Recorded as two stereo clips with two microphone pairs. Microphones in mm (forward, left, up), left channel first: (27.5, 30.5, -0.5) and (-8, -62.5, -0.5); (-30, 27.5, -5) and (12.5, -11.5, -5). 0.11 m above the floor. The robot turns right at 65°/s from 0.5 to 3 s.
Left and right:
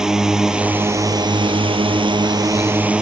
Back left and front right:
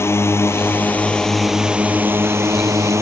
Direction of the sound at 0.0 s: 165° left.